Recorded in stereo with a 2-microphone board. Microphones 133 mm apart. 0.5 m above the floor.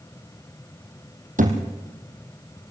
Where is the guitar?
I don't hear a guitar.